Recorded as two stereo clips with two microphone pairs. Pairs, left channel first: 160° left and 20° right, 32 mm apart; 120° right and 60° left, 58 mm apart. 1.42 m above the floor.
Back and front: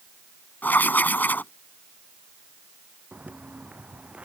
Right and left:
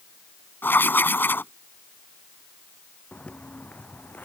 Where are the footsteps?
50° right; by 4.3 s 65° right.